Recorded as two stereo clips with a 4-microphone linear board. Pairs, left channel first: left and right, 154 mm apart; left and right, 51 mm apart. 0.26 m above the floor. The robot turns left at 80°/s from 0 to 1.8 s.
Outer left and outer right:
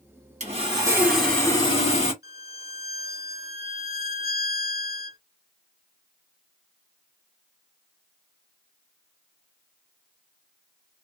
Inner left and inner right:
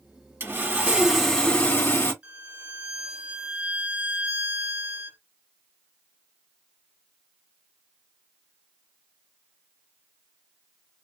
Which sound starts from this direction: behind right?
Sawing, at 0.4 s.